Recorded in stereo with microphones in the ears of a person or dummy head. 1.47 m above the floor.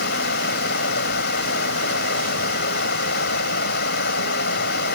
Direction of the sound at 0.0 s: 55° left (ahead or behind).